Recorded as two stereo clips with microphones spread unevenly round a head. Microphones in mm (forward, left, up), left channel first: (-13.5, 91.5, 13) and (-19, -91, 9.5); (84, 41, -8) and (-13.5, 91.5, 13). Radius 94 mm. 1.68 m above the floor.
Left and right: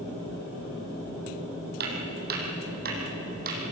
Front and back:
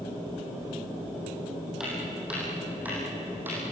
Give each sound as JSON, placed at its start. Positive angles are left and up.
{"t": 1.8, "sound": "footsteps", "azimuth_deg": -125, "distance_m": 4.5}